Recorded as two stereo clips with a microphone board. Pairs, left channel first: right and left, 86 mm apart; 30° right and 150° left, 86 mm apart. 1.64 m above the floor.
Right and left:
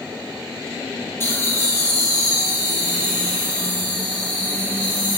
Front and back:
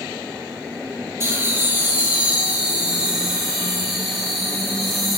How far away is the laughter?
About 1.7 m.